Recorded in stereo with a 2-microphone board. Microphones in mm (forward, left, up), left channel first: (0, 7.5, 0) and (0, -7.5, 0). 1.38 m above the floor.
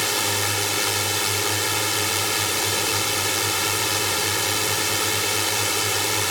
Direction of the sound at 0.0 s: Centre (ahead or behind).